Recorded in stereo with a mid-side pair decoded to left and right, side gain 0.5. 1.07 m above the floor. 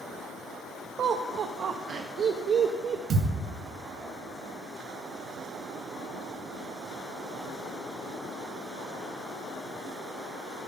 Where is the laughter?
50° right, 0.8 m.